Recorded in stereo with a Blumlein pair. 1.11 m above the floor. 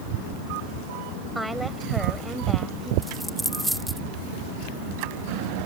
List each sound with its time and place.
1.4 s a woman speaking: 5° right
3.0 s a dropped coin: 5° right